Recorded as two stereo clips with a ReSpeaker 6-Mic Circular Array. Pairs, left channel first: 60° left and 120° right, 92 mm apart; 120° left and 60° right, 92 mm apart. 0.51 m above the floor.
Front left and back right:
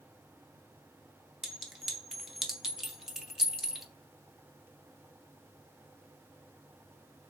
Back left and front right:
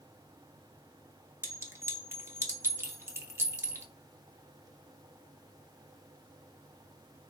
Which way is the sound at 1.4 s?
40° right.